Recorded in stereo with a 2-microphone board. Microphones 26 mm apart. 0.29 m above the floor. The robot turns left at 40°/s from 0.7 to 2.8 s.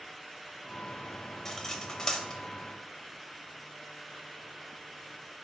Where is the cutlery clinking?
15° left (ahead or behind), 0.6 m; by 2.4 s 25° left (ahead or behind), 0.6 m.